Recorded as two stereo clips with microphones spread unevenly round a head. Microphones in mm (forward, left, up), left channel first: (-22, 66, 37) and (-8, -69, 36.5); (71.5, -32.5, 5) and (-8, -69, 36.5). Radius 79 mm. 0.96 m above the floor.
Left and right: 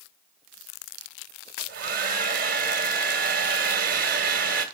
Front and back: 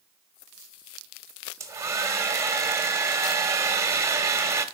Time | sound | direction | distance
1.6 | a hair dryer | 105° right | 1.9 m